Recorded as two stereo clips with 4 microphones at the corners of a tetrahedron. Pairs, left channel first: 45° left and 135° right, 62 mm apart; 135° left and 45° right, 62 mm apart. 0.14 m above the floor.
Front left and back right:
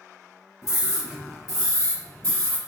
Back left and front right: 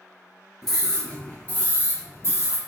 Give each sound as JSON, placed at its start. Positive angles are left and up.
{"t": 0.6, "sound": "a scream", "azimuth_deg": 55, "distance_m": 1.5}